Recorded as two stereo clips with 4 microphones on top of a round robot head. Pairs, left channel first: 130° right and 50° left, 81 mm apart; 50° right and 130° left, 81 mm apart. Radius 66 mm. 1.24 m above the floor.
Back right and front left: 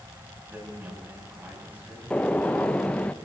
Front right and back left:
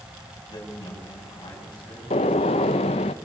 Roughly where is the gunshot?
Ahead right.